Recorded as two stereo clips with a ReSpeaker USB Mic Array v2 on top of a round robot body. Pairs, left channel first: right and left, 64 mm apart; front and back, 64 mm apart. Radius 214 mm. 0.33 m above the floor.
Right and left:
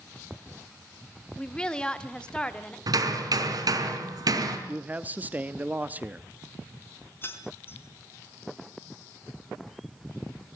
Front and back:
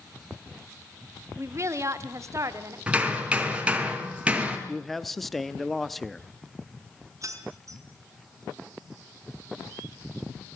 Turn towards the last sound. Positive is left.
turn(degrees=-145)